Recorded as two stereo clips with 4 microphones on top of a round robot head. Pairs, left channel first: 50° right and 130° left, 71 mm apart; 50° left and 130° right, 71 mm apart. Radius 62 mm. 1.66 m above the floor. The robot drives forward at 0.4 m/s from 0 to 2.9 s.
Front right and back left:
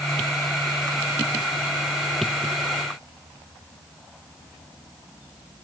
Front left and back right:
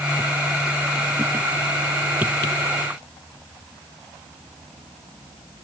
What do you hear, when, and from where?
Only background noise.